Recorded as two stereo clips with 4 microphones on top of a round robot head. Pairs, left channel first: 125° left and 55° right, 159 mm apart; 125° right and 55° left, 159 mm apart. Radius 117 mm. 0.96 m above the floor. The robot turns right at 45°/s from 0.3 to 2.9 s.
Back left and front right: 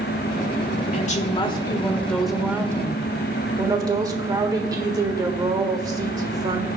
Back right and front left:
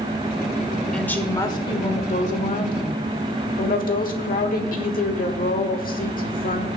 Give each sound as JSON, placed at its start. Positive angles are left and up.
{"t": 0.9, "sound": "a woman speaking", "azimuth_deg": 150, "distance_m": 1.4}